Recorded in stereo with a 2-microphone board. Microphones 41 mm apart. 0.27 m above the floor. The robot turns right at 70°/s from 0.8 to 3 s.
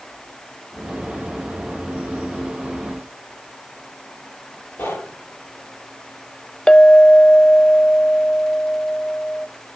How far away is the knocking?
About 7 m.